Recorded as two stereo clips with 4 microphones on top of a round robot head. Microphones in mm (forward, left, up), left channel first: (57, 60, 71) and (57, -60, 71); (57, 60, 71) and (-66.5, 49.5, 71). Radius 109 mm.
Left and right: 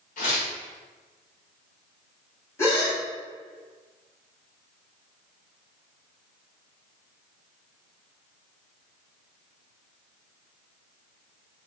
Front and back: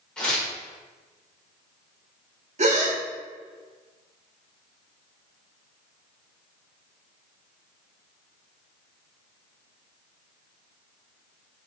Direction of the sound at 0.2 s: 90° left.